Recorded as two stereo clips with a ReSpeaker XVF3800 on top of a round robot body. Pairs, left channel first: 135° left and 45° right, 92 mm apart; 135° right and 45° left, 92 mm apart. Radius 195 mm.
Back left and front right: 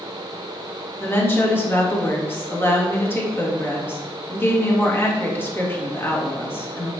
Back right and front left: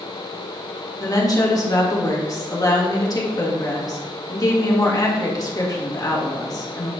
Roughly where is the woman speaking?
Behind.